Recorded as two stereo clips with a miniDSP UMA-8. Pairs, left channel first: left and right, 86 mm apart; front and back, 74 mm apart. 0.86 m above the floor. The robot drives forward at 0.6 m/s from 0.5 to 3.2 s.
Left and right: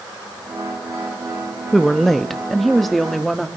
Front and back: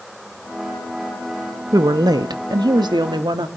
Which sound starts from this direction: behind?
A woman speaking, at 1.7 s.